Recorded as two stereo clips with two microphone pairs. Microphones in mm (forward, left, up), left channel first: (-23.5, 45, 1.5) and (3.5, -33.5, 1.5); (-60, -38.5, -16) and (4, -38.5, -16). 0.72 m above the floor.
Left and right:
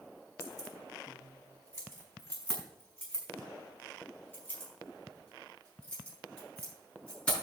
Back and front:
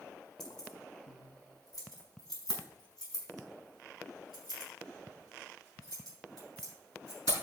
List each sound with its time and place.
0.4 s keys jangling: 170° left, 4 m; by 7.3 s 175° right, 9.5 m